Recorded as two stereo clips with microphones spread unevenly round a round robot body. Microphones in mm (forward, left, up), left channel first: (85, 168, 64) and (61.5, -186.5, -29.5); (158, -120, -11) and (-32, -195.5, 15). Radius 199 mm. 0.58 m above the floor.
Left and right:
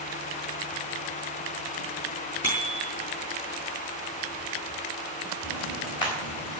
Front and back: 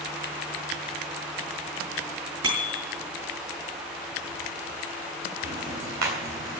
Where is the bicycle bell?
165° left, 6.5 m.